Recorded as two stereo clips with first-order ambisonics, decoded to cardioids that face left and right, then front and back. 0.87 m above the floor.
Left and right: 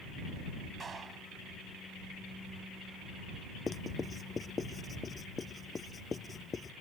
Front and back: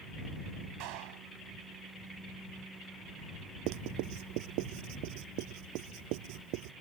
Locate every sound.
0.8 s a clap: 160° right
3.7 s writing: 165° left